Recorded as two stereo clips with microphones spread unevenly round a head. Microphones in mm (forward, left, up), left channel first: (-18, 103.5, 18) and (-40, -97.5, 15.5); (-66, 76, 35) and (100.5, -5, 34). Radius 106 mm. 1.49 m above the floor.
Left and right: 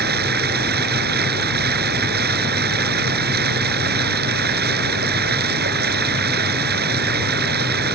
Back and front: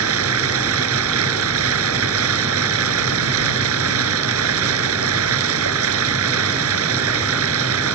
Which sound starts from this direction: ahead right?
Running water, at 0.0 s.